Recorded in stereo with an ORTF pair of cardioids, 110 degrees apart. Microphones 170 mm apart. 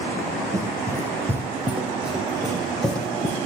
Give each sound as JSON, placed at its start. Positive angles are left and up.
{"t": 0.5, "sound": "running footsteps", "azimuth_deg": -20, "distance_m": 5.5}